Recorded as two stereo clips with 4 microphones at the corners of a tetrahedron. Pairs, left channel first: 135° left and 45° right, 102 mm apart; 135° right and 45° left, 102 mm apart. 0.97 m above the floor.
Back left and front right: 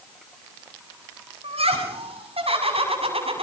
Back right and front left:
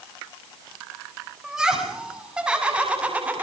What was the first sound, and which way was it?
Laughter, 40° right.